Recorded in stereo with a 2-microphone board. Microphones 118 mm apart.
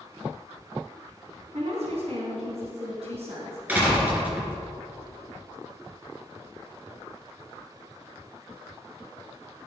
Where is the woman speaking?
60° right (ahead or behind), 3.5 m.